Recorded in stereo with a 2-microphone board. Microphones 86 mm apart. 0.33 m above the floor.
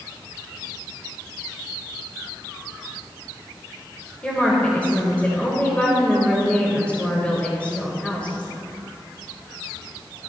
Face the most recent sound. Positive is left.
turn(degrees=15)  # may be behind; listen again after turning